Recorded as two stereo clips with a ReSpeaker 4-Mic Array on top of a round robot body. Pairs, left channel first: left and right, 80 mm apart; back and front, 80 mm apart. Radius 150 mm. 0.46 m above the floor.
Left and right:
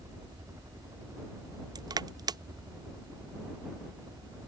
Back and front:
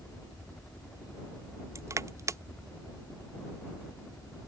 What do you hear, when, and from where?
0.0 s a helicopter: 110° right
1.8 s crushing: 55° right